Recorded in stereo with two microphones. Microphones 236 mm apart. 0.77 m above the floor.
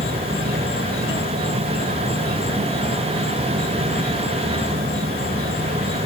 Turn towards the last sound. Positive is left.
turn(degrees=-45)  # may be behind; listen again after turning